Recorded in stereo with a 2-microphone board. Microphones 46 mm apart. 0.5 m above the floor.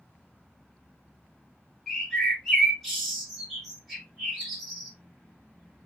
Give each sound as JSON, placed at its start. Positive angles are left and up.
{"t": 1.9, "sound": "a bird", "side_deg": 5, "distance_m": 1.8}